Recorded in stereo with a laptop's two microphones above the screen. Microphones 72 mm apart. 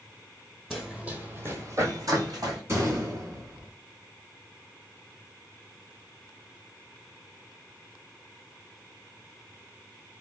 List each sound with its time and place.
0.7 s running footsteps: centre (ahead or behind), 1.2 m; by 2.6 s 60° right (ahead or behind), 1.9 m
2.7 s a gunshot: 40° right (ahead or behind), 1.2 m